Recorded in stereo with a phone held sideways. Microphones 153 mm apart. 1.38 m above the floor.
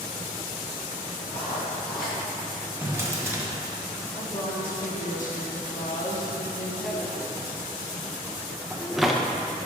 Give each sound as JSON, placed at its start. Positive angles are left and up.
{"t": 1.3, "sound": "writing", "side_deg": 80, "distance_m": 1.5}
{"t": 2.8, "sound": "a drawer", "side_deg": -20, "distance_m": 0.9}
{"t": 4.2, "sound": "a woman speaking", "side_deg": 55, "distance_m": 1.3}
{"t": 6.8, "sound": "a drawer", "side_deg": 0, "distance_m": 0.5}